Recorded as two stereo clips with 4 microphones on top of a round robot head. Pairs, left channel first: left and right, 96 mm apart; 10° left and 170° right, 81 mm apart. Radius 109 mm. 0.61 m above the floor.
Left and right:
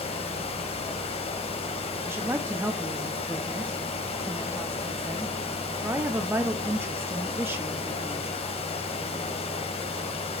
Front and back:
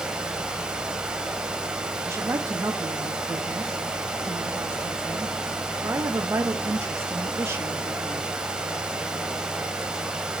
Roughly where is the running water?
Left.